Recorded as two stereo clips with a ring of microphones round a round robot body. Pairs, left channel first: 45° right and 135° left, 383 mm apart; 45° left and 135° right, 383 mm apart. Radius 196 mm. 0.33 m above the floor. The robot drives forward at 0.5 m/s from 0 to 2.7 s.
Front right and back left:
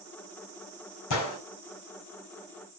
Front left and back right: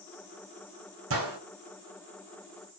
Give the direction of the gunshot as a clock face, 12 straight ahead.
3 o'clock.